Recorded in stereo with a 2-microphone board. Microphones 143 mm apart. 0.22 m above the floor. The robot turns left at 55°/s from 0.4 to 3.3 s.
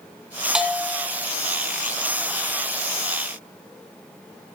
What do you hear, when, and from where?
0.6 s a bell: 5° right (ahead or behind), 1.0 m; by 1.1 s 20° left (ahead or behind), 1.0 m